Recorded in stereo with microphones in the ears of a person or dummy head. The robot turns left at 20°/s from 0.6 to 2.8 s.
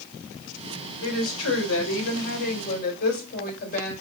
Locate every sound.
1.0 s a woman speaking: 85° left, 2.5 m; by 3.9 s 50° left, 2.5 m